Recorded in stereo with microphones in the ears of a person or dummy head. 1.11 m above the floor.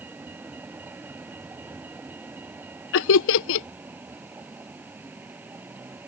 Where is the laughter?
70° left (ahead or behind).